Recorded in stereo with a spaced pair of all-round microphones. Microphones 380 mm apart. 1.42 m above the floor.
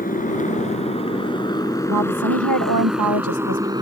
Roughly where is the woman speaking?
Right.